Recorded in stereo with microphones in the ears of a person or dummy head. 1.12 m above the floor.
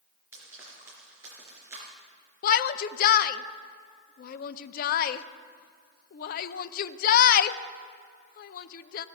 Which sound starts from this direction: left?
A shout, at 2.4 s.